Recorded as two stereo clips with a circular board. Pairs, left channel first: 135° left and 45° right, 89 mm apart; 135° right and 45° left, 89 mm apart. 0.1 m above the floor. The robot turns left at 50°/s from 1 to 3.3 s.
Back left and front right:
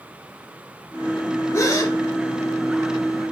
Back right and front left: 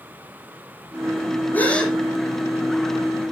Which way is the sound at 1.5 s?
165° left.